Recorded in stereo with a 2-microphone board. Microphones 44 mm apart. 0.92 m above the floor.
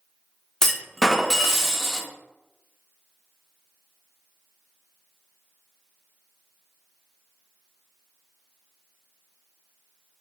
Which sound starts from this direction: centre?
A clunk, at 0.6 s.